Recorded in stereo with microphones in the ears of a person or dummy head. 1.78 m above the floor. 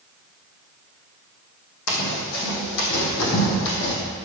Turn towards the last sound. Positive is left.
turn(degrees=60)  # may be behind; listen again after turning